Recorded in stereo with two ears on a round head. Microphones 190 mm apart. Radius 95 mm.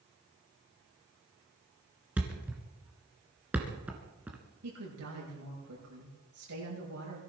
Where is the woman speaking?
80° right, 8.5 m.